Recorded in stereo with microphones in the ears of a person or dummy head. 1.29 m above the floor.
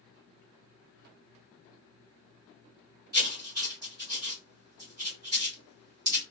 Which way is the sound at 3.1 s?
25° right (ahead or behind).